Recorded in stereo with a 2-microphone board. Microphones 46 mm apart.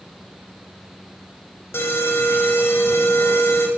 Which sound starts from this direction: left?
An alarm, at 1.7 s.